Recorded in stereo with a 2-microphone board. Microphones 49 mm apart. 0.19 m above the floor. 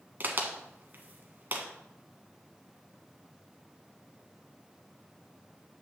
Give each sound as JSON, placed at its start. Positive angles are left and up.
{"t": 0.2, "sound": "a crack", "side_deg": -40, "distance_m": 1.3}